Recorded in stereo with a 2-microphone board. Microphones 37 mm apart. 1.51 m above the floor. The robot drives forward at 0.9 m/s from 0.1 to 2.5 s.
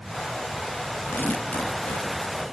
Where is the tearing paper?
65° left (ahead or behind), 1.3 m; by 2.4 s 40° left (ahead or behind), 1.9 m.